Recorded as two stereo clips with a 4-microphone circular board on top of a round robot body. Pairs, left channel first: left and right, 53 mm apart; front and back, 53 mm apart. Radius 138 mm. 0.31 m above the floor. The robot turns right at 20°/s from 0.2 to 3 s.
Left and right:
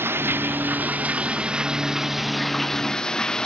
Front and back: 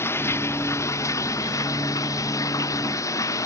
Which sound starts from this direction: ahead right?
Running water, at 0.0 s.